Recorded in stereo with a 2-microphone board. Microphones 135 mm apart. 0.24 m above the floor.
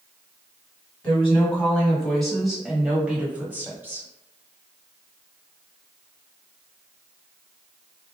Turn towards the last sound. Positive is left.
turn(degrees=-20)  # may be behind; listen again after turning